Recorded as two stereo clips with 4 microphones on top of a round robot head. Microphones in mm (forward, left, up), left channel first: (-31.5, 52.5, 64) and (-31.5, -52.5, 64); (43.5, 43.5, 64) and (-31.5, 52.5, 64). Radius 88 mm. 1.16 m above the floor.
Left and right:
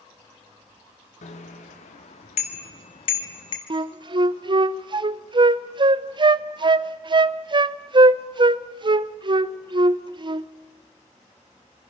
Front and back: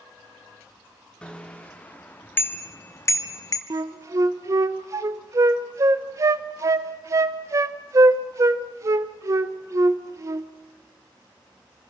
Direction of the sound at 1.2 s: 70° left.